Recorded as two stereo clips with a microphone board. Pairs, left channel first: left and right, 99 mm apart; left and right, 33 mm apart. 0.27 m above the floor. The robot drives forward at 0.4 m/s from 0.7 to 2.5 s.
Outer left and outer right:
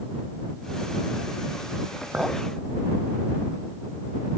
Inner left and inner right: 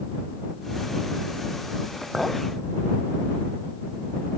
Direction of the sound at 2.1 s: 15° right (ahead or behind).